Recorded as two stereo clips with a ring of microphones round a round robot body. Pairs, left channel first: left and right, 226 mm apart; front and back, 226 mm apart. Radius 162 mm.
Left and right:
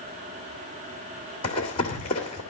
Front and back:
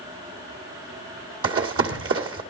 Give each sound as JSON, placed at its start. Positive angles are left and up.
{"t": 1.4, "sound": "running footsteps", "azimuth_deg": 165, "distance_m": 1.9}